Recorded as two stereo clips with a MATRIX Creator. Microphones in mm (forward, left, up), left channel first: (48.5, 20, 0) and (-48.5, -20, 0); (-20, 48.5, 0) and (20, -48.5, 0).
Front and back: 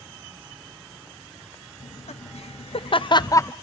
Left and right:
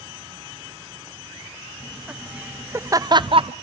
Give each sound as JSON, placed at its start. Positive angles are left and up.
{"t": 1.8, "sound": "laughter", "azimuth_deg": 20, "distance_m": 1.0}